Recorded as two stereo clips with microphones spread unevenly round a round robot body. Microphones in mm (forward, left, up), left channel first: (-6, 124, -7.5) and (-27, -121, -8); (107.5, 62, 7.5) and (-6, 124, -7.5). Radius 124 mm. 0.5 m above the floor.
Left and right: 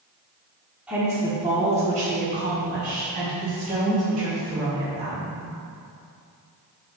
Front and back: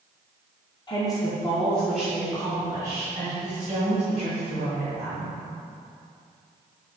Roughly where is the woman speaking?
Ahead.